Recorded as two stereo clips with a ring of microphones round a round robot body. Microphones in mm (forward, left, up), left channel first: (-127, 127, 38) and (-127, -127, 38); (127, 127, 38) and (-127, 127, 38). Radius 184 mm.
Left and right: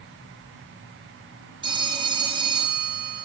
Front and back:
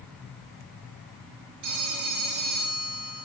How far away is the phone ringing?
About 3.5 m.